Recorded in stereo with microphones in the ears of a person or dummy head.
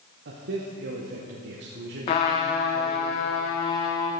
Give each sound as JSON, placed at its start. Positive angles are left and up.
{"t": 0.2, "sound": "a man speaking", "side_deg": -50, "distance_m": 0.9}
{"t": 2.1, "sound": "a trumpet", "side_deg": 25, "distance_m": 0.6}